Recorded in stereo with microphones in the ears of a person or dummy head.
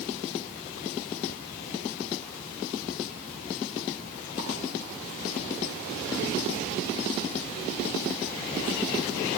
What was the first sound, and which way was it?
Only background noise.